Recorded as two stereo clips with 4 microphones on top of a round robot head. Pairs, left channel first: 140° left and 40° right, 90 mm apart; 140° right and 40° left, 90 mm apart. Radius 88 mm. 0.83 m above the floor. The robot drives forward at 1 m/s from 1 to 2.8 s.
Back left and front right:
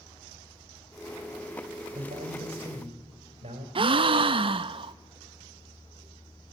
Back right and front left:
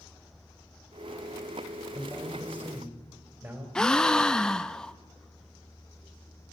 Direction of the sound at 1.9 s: 20° right.